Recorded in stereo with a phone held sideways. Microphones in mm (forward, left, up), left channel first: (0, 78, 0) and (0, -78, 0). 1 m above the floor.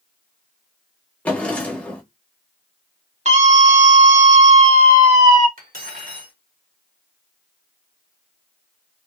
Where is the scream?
50° right (ahead or behind), 1.3 m.